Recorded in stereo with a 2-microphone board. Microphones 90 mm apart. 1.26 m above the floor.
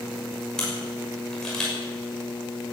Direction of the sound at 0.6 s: 5° left (ahead or behind).